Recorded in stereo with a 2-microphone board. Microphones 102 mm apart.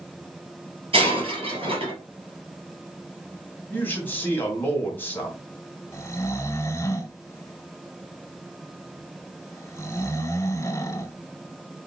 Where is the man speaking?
20° left (ahead or behind), 2.5 m.